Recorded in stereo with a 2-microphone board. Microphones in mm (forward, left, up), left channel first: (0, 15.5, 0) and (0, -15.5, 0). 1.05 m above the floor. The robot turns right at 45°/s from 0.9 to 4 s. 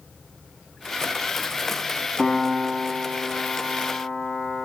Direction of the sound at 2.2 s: 10° right (ahead or behind).